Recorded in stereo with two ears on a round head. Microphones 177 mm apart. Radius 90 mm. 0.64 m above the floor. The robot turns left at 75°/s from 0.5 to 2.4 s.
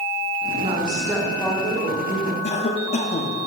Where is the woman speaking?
130° right, 1.4 m; by 2.3 s 100° left, 1.4 m.